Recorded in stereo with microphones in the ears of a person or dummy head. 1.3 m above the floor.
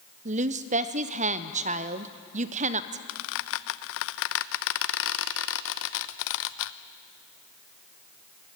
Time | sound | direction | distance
0.2 | a woman speaking | 35° right (ahead or behind) | 0.6 m
3.1 | a squeak | 65° left (ahead or behind) | 0.5 m